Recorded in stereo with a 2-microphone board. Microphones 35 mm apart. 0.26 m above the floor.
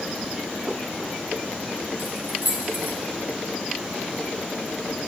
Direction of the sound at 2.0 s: 75° right (ahead or behind).